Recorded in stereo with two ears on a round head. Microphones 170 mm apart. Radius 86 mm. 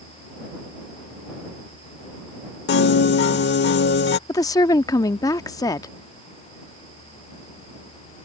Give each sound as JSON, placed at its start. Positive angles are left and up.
{"t": 2.7, "sound": "a piano", "side_deg": 60}
{"t": 4.3, "sound": "a woman speaking", "side_deg": 20}